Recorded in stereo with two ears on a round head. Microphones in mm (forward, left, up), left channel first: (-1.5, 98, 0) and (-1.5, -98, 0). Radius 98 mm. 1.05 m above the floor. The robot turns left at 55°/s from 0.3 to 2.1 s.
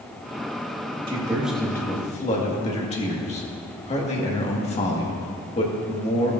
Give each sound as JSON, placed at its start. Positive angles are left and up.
{"t": 1.1, "sound": "a man speaking", "azimuth_deg": -155, "distance_m": 1.7}